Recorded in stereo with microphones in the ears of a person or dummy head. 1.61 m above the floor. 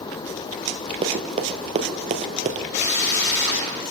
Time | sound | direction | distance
1.0 | running footsteps | 35° right (ahead or behind) | 2.5 m
2.7 | a drill | 60° left (ahead or behind) | 7 m